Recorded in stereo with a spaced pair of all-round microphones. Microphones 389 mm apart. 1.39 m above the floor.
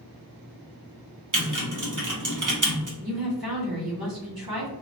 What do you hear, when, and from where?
1.3 s typing on a keyboard: 50° right (ahead or behind), 0.9 m
3.0 s a woman speaking: 65° right (ahead or behind), 1.4 m